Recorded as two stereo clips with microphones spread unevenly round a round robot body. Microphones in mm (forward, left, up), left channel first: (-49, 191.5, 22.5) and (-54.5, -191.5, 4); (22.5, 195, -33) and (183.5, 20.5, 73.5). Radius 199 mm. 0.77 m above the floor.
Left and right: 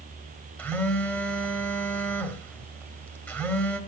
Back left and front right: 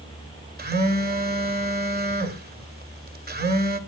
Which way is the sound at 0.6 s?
5° left.